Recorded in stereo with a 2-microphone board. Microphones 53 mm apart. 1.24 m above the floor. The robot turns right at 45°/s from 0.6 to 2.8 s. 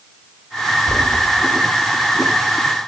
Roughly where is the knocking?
Right.